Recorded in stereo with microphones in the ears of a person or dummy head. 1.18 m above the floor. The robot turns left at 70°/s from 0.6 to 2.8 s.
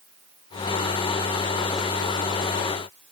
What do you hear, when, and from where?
Only background noise.